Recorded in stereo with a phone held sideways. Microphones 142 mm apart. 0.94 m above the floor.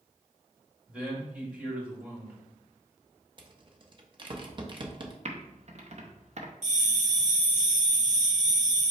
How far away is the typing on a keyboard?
About 0.6 m.